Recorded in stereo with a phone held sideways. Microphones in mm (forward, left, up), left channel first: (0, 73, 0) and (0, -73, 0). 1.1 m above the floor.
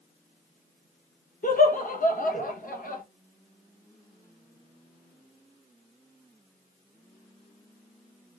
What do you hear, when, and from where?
1.4 s laughter: 70° left (ahead or behind), 0.9 m